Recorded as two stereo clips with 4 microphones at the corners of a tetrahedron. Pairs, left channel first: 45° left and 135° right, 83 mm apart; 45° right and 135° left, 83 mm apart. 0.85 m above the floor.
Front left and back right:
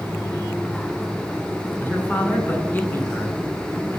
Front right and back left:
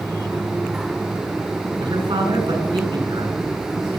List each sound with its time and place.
1.8 s a man speaking: 115° left, 7.5 m